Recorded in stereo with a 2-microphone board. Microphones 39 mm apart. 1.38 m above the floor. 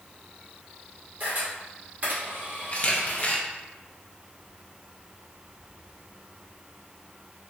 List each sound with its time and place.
1.2 s a camera shutter: 50° right (ahead or behind), 1.7 m
2.7 s a camera shutter: 35° left (ahead or behind), 0.6 m